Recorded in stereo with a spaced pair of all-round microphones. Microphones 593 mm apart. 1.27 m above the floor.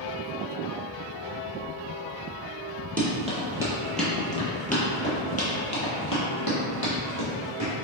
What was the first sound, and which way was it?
Running footsteps, 15° right (ahead or behind).